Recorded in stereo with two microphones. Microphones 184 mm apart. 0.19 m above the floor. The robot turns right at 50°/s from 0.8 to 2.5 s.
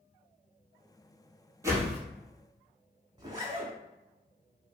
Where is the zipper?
20° right (ahead or behind), 0.8 m.